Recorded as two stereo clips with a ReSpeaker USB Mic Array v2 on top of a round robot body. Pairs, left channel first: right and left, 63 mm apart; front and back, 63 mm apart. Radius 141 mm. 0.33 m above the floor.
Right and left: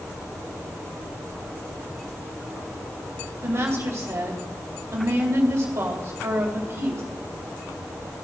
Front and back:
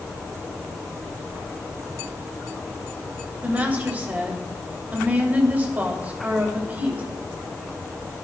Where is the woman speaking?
120° left, 2.5 m.